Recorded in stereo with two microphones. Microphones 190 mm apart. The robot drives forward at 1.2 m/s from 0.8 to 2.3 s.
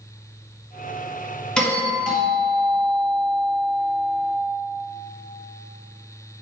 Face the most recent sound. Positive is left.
turn(degrees=5)  # may be behind; listen again after turning